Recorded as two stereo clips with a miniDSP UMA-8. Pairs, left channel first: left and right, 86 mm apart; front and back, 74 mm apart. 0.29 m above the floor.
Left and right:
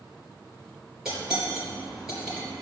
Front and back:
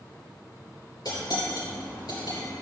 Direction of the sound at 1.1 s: 5° right.